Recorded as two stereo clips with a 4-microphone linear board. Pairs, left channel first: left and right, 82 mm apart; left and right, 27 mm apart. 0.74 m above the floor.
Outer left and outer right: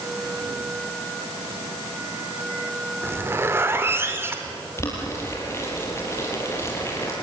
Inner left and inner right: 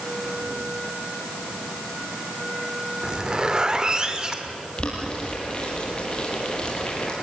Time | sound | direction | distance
3.0 | a zipper | 30° right (ahead or behind) | 2 m
4.8 | boiling | 30° left (ahead or behind) | 6 m